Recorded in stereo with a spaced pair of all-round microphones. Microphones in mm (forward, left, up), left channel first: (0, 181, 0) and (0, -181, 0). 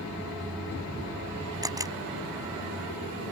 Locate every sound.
1.6 s a camera shutter: 10° right (ahead or behind)